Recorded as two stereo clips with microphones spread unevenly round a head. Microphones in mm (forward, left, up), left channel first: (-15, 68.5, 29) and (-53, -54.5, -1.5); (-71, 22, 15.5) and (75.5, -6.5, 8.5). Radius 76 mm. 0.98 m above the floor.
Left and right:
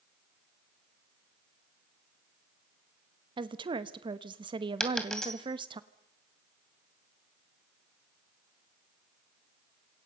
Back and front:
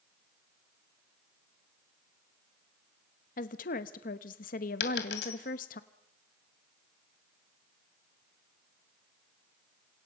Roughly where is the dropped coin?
Behind left.